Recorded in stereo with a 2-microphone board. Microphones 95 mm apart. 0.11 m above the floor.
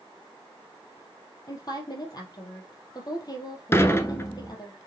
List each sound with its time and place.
1.5 s a woman speaking: 40° left (ahead or behind), 2.5 m
3.7 s dishes clattering: 25° left (ahead or behind), 1.0 m